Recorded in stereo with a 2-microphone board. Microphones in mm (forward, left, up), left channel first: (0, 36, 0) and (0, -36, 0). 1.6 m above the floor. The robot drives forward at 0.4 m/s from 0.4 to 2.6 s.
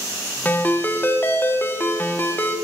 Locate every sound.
0.5 s a ringtone: 25° left (ahead or behind), 0.8 m